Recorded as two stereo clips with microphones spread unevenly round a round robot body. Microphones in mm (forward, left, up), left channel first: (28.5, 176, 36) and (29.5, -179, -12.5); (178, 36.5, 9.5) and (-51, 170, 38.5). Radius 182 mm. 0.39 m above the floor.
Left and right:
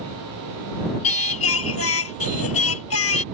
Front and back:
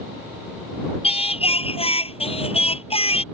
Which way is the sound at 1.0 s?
40° left.